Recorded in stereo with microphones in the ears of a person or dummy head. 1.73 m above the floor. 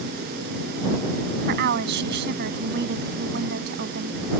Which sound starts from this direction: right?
A woman speaking, at 1.5 s.